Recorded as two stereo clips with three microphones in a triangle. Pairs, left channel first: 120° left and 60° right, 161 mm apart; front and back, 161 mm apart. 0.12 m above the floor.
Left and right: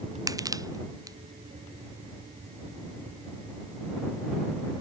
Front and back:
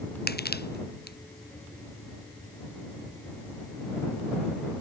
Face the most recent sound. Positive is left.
turn(degrees=10)